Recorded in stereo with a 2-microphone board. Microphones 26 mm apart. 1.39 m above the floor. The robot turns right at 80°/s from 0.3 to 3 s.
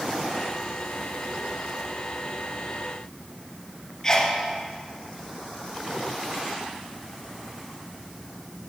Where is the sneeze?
25° left (ahead or behind), 1.0 m.